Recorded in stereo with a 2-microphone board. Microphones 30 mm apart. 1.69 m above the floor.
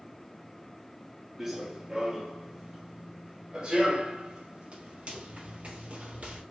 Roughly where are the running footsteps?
Centre.